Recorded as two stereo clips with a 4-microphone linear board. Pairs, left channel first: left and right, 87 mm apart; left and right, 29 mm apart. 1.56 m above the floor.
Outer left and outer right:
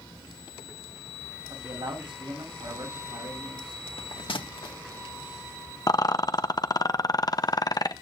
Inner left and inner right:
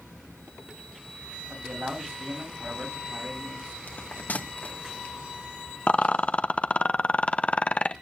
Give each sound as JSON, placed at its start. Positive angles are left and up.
{"t": 1.5, "sound": "a man speaking", "side_deg": -70, "distance_m": 8.5}
{"t": 3.9, "sound": "a bell", "side_deg": 75, "distance_m": 1.9}
{"t": 5.9, "sound": "a rattle", "side_deg": 45, "distance_m": 0.8}